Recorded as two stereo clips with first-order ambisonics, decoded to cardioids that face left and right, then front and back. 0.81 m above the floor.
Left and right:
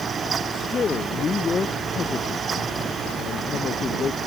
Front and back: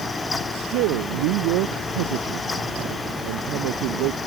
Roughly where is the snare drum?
No snare drum in this recording.